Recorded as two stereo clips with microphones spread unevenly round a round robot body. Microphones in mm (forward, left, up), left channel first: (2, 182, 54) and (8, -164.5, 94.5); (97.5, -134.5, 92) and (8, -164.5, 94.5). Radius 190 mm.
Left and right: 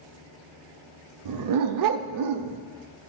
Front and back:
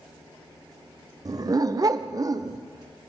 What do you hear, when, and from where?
1.2 s a dog barking: 110° right, 0.5 m